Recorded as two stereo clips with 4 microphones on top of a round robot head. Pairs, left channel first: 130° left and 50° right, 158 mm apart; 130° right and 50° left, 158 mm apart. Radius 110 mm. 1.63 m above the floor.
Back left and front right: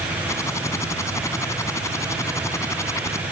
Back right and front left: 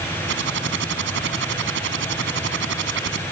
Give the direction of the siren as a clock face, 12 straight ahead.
I don't hear a siren.